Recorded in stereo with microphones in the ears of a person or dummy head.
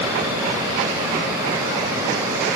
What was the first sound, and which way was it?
Only background noise.